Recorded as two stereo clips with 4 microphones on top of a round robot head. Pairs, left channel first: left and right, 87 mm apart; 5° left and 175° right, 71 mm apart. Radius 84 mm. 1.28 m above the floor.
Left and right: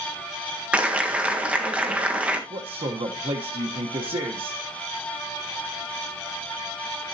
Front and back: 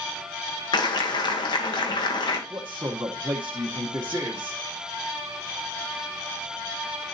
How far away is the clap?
About 1.4 m.